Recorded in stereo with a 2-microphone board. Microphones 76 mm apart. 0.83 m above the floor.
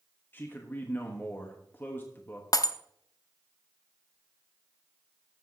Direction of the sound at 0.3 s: 30° left (ahead or behind).